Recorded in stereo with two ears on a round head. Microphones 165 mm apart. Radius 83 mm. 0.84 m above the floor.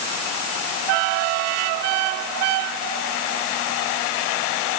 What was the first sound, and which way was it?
Only background noise.